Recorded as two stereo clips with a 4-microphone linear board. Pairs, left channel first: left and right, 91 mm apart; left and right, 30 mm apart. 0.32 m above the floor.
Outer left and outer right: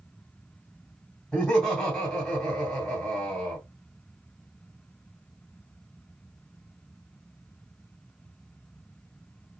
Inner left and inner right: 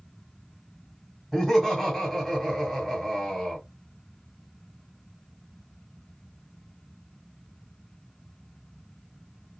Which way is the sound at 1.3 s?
5° left (ahead or behind).